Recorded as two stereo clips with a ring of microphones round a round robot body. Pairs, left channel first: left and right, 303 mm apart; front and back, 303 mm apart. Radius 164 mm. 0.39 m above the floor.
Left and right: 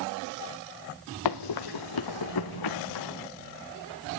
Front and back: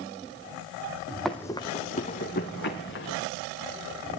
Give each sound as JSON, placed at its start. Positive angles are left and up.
{"t": 1.2, "sound": "running footsteps", "azimuth_deg": 90, "distance_m": 1.0}